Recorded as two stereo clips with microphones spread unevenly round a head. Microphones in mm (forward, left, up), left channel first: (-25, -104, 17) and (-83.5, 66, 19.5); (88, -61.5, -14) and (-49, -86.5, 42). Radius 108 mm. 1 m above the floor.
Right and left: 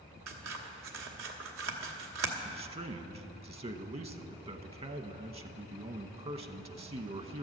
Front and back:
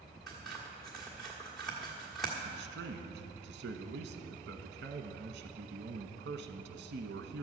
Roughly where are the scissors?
Left.